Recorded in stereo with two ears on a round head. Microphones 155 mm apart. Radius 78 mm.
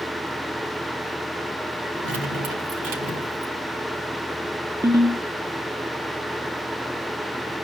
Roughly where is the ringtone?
Centre.